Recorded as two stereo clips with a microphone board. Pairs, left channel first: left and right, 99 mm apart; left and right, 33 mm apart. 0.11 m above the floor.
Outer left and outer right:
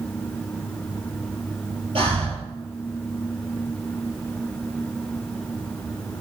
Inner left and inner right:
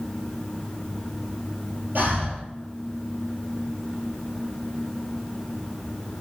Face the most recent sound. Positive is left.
turn(degrees=-60)  # may be behind; listen again after turning